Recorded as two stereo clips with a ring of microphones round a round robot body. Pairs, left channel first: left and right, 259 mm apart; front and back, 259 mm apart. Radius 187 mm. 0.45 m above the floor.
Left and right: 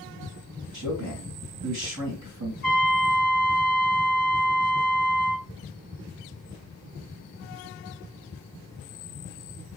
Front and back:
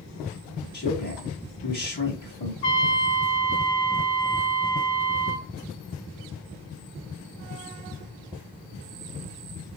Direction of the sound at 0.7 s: 60° right.